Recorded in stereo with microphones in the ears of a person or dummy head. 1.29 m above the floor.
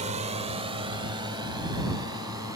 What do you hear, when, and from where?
0.0 s a drone: 35° right (ahead or behind); by 2.6 s 20° right (ahead or behind)